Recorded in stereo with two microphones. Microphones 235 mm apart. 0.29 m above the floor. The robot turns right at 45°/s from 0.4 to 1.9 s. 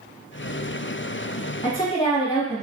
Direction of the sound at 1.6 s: 20° left (ahead or behind).